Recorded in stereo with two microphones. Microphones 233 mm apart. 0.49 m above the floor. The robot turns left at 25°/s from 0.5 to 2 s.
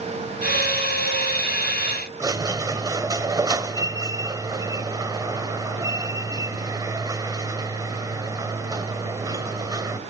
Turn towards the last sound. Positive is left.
turn(degrees=-15)  # may be behind; listen again after turning